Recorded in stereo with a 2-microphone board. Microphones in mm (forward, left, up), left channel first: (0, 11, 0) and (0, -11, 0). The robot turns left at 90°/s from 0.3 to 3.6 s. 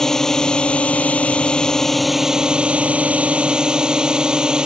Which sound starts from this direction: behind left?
A drone, at 0.0 s.